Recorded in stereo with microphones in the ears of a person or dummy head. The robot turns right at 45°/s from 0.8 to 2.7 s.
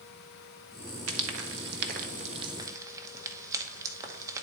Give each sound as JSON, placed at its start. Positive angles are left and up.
{"t": 1.1, "sound": "frying", "side_deg": -90, "distance_m": 0.9}